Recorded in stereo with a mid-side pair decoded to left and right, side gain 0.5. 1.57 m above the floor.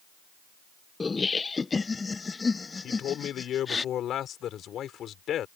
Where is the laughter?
25° left; by 3.8 s 30° left.